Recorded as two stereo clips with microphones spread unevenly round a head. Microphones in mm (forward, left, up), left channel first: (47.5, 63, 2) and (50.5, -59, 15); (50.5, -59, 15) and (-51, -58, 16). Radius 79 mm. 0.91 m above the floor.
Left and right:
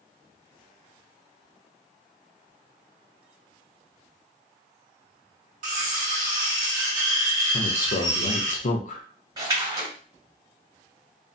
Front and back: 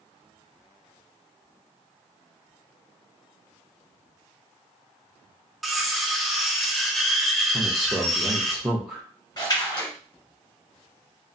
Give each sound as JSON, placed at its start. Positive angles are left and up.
{"t": 5.6, "sound": "cutlery clinking", "azimuth_deg": -90, "distance_m": 0.7}
{"t": 7.5, "sound": "a man speaking", "azimuth_deg": 95, "distance_m": 0.5}
{"t": 9.4, "sound": "a splash", "azimuth_deg": -45, "distance_m": 1.6}